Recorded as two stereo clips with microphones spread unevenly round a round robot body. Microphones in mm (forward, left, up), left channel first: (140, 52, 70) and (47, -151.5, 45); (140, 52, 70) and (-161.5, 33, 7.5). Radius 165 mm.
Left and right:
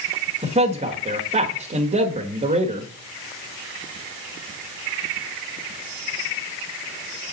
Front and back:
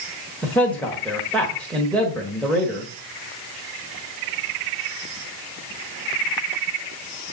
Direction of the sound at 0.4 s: 95° right.